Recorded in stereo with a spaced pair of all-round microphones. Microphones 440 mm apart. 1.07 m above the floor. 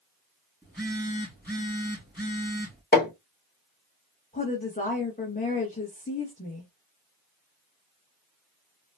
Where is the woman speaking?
15° left (ahead or behind), 1.3 m.